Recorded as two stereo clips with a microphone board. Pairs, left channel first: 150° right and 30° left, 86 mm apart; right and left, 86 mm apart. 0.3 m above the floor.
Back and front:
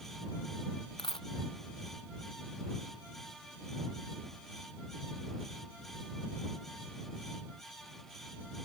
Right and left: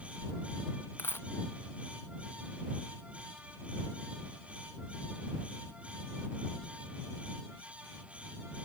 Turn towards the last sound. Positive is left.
turn(degrees=-155)